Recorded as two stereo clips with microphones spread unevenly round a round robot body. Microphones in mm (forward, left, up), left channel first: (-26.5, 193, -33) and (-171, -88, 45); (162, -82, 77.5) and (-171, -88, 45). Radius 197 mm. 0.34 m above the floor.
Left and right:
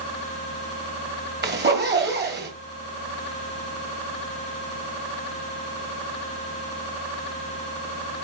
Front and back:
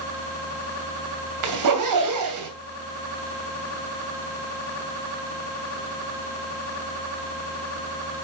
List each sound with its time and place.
1.4 s a zipper: straight behind, 2.5 m